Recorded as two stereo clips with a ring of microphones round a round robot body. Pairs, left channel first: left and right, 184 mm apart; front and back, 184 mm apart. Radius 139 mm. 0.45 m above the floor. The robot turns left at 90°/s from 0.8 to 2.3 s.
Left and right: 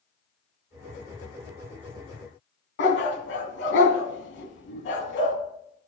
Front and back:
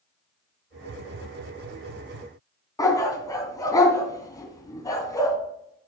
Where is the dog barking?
75° left, 2 m.